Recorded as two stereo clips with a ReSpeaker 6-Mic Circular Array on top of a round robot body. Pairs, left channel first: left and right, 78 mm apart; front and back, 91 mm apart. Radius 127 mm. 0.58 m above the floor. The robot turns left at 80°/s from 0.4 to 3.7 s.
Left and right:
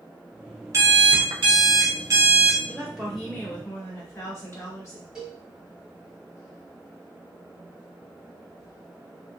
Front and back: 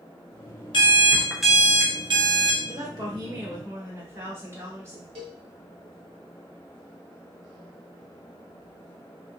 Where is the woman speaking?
150° right, 1.7 m; by 5.0 s 130° left, 1.7 m.